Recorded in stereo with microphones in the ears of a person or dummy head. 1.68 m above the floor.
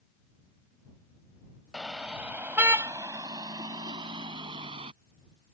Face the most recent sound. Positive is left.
turn(degrees=-30)  # may be behind; listen again after turning